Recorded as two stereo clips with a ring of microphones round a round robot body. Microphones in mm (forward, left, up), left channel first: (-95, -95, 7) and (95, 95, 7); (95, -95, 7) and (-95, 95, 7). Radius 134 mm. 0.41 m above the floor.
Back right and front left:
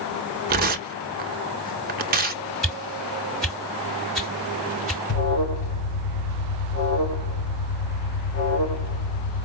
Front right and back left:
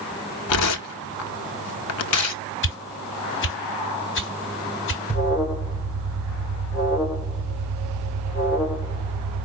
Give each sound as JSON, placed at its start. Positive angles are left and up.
{"t": 0.5, "sound": "tearing paper", "azimuth_deg": -15, "distance_m": 0.7}
{"t": 2.6, "sound": "a whoosh", "azimuth_deg": -45, "distance_m": 1.7}
{"t": 5.1, "sound": "an alarm", "azimuth_deg": -155, "distance_m": 3.5}